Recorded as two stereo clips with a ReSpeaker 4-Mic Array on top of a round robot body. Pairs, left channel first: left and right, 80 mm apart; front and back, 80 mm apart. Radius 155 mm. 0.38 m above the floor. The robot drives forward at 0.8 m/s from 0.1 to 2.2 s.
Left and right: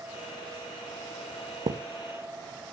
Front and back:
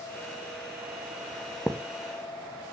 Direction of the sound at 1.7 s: 80° right.